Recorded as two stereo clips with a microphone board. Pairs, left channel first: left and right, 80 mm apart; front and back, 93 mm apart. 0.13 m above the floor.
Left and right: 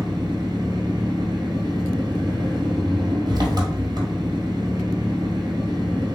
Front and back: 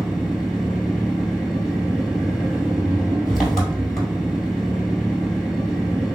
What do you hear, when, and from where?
0.0 s an engine running: 85° right, 1.5 m